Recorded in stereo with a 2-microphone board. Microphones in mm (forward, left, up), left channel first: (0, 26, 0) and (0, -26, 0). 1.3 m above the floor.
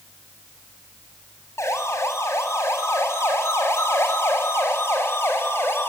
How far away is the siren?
About 7 m.